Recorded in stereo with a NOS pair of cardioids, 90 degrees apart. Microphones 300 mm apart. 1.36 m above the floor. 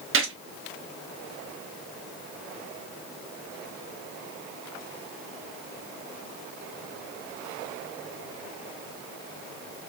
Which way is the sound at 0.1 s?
45° right.